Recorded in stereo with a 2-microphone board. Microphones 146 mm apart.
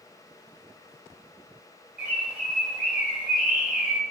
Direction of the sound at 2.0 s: 10° right (ahead or behind).